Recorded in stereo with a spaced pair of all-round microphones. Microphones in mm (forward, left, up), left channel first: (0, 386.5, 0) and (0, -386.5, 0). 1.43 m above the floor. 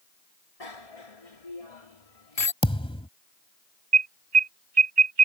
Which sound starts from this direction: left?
A bicycle bell, at 0.6 s.